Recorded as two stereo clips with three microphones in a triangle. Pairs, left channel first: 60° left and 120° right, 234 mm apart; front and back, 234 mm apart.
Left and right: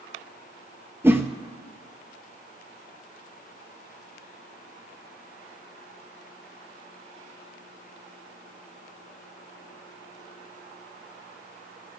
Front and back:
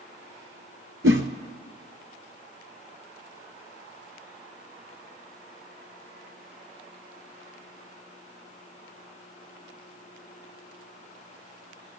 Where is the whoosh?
160° left, 1.0 m.